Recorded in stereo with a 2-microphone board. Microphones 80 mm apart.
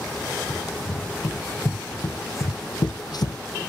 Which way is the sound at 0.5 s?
20° left (ahead or behind).